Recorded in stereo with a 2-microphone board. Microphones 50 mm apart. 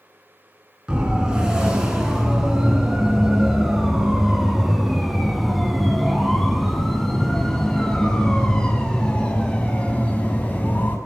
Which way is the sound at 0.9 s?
15° right (ahead or behind).